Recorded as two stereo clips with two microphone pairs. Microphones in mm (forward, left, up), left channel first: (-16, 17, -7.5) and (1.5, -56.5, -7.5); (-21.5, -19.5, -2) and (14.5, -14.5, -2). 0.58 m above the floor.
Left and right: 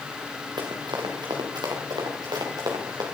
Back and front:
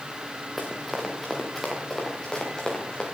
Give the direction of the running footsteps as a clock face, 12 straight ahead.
3 o'clock.